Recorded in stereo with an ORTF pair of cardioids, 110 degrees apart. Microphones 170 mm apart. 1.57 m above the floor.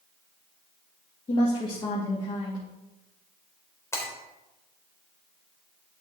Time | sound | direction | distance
1.3 | a woman speaking | 30° left | 2.5 m
3.9 | breaking glass | 15° left | 4 m